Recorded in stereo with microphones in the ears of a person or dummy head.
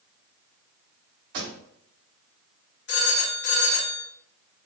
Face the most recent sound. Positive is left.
turn(degrees=60)  # may be behind; listen again after turning